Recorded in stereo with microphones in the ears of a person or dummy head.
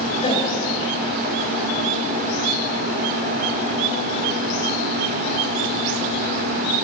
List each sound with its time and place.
0.2 s a gasp: 25° left (ahead or behind), 4.5 m